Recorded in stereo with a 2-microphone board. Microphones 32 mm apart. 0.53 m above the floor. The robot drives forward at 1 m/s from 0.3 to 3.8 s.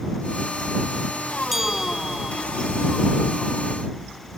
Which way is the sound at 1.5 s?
10° right (ahead or behind).